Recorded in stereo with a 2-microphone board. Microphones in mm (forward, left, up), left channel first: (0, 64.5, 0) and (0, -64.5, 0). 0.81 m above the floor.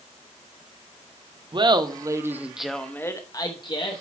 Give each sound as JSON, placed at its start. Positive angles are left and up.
{"t": 1.5, "sound": "laughter", "side_deg": -40, "distance_m": 0.9}